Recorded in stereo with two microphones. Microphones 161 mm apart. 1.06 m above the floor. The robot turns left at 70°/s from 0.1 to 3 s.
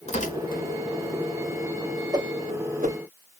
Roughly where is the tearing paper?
Left.